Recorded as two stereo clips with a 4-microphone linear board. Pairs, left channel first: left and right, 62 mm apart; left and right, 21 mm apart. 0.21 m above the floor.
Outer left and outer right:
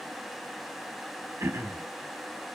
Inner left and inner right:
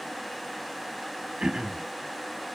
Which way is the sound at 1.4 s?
40° right (ahead or behind).